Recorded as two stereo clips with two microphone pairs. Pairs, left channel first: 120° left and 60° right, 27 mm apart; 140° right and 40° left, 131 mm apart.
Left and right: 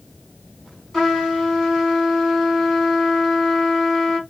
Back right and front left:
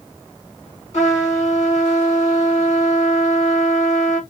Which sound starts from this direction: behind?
A trumpet, at 0.9 s.